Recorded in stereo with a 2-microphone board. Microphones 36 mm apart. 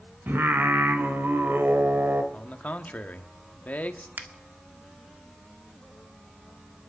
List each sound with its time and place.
0.3 s singing: 85° right, 1.7 m
2.3 s a man speaking: 45° left (ahead or behind), 1.5 m
4.2 s a finger snap: 55° right (ahead or behind), 1.7 m